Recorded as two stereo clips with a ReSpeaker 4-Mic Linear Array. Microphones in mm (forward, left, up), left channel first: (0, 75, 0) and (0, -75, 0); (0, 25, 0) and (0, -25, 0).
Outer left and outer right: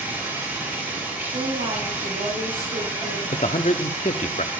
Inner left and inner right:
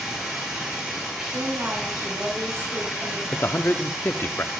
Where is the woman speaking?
65° right (ahead or behind), 4 m.